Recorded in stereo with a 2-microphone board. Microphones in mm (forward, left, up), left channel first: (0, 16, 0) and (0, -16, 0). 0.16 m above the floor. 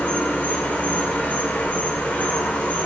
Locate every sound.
0.0 s an insect: 65° left (ahead or behind), 4 m